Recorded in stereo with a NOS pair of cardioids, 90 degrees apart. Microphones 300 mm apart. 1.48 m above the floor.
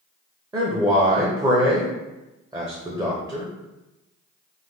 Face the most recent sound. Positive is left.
turn(degrees=-10)